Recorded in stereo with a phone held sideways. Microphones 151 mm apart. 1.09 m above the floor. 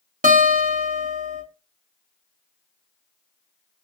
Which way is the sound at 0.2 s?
60° right (ahead or behind).